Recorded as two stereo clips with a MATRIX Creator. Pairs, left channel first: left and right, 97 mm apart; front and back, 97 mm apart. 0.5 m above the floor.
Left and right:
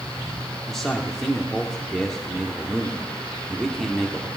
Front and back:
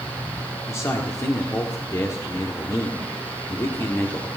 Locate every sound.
0.7 s a man speaking: 10° left, 1.4 m